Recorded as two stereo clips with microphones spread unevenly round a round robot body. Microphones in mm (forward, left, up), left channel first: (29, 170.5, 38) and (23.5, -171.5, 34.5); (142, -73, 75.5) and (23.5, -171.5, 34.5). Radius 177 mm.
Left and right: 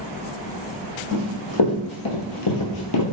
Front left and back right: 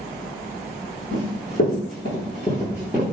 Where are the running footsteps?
60° left, 1.2 m; by 3.0 s 125° left, 0.6 m.